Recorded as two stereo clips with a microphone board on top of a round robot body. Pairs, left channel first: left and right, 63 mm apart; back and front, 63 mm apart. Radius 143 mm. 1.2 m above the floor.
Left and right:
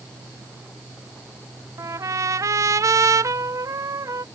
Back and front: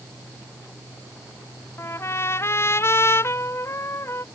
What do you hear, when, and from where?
1.8 s a trumpet: 130° right